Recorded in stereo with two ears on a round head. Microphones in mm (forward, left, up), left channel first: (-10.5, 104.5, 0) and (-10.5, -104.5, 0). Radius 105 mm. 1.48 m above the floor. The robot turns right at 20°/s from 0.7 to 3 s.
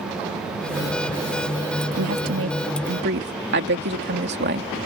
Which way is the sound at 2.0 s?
70° right (ahead or behind).